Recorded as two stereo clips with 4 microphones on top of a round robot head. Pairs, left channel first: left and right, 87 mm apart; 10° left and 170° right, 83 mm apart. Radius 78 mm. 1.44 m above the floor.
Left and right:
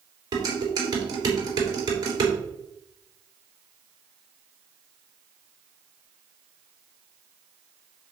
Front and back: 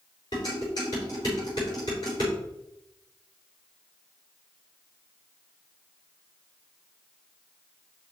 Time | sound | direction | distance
0.3 | dishes clattering | 45° right | 3.5 m